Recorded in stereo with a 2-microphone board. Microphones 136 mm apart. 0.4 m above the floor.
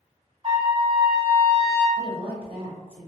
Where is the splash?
I don't hear a splash.